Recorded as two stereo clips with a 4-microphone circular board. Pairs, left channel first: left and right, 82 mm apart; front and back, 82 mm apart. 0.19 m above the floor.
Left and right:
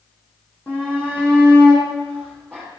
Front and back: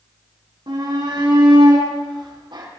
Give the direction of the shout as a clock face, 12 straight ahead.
7 o'clock.